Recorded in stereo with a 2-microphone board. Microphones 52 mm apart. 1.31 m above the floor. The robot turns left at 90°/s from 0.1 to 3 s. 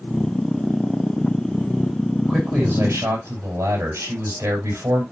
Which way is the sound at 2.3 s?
30° right.